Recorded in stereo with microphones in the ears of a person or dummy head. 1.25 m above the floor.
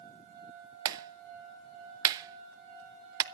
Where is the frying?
I don't hear frying.